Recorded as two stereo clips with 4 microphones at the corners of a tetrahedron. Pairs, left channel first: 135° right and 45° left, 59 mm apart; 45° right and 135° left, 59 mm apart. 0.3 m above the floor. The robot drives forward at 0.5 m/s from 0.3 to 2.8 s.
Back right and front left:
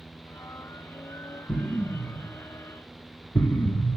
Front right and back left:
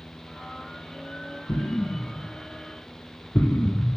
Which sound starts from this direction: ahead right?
An explosion, at 1.5 s.